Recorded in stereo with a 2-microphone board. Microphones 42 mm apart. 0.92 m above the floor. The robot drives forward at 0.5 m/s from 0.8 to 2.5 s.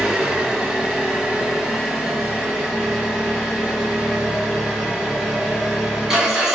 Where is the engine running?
15° right (ahead or behind), 1.1 m; by 6.5 s 5° right (ahead or behind), 1.9 m.